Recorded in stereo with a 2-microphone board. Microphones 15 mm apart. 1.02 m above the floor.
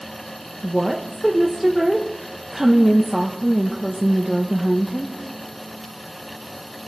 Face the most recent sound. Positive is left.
turn(degrees=-10)  # may be behind; listen again after turning